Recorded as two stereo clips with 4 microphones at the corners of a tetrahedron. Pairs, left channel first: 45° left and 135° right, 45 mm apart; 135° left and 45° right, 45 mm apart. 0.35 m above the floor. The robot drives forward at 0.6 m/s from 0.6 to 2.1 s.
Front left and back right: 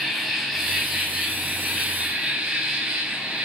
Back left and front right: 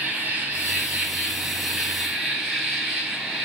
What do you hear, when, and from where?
0.0 s an insect: 50° right, 1.7 m; by 3.5 s 115° right, 1.7 m